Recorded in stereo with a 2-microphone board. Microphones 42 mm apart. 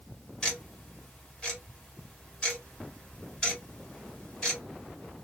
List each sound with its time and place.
0.4 s ticking: 20° left (ahead or behind), 1.5 m